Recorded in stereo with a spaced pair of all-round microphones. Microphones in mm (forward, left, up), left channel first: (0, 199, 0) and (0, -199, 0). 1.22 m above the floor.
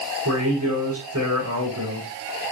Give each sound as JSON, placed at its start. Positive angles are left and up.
{"t": 0.2, "sound": "a man speaking", "side_deg": -40, "distance_m": 4.5}